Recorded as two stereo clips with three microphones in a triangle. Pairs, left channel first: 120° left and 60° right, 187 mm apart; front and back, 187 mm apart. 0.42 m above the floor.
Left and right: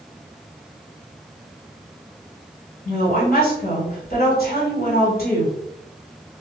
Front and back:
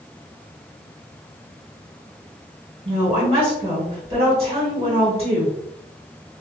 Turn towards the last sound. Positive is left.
turn(degrees=130)